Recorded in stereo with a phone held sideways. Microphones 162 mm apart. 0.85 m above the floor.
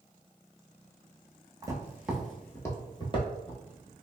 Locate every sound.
1.6 s footsteps: 25° right (ahead or behind), 0.9 m; by 3.9 s 50° left (ahead or behind), 1.3 m